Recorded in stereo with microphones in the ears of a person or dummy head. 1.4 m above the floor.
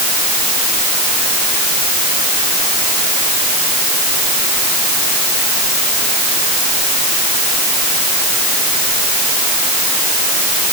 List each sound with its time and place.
Only background noise.